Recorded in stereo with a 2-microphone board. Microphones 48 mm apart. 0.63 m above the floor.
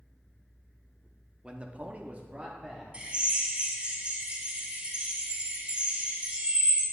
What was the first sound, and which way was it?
A man speaking, 20° right (ahead or behind).